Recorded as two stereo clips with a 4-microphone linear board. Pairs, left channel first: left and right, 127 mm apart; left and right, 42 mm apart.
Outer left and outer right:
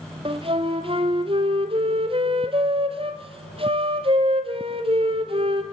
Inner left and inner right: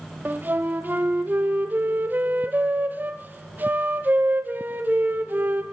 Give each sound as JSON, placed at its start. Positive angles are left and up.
{"t": 0.2, "sound": "a flute", "side_deg": -45, "distance_m": 1.7}